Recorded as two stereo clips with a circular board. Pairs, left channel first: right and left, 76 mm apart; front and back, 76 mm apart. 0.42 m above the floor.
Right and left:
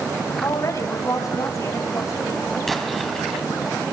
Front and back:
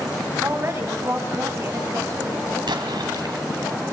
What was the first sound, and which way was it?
A woman speaking, 130° right.